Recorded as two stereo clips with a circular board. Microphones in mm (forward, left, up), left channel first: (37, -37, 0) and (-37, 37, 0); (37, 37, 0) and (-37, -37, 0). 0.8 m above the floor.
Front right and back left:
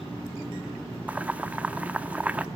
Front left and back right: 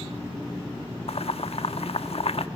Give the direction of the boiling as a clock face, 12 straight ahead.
10 o'clock.